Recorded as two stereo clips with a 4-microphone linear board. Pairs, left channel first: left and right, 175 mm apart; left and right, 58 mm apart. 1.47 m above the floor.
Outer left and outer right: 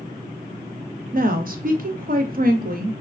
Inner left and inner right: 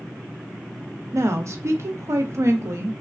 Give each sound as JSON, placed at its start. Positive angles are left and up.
{"t": 1.1, "sound": "a woman speaking", "side_deg": -55, "distance_m": 0.5}